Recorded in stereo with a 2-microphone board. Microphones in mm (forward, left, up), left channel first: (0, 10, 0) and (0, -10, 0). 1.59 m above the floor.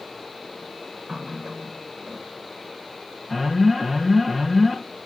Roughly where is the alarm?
Centre.